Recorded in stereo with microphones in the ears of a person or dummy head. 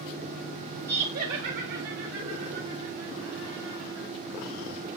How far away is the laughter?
About 0.5 m.